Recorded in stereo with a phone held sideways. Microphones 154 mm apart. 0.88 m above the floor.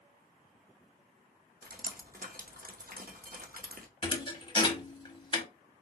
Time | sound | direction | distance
1.6 | dripping | 70° right (ahead or behind) | 0.7 m
4.0 | a thud | 35° left (ahead or behind) | 0.8 m